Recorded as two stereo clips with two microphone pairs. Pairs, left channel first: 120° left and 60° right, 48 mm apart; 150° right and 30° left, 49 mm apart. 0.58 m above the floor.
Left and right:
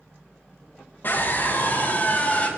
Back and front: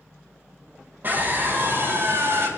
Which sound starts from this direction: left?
A scream, at 1.0 s.